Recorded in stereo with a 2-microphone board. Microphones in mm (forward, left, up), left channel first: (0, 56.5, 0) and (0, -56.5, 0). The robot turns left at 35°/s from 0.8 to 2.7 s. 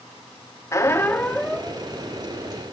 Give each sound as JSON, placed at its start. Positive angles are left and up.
{"t": 0.7, "sound": "a squeak", "azimuth_deg": 30, "distance_m": 1.0}